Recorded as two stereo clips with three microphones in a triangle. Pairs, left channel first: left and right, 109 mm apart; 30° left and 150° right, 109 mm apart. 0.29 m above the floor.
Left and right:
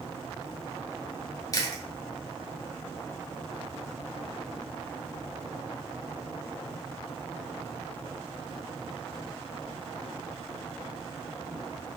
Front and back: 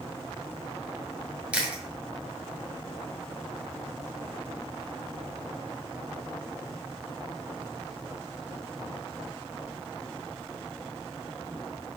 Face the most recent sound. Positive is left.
turn(degrees=135)